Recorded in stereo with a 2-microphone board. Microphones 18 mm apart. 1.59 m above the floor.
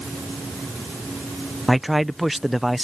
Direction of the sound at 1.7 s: 10° right (ahead or behind).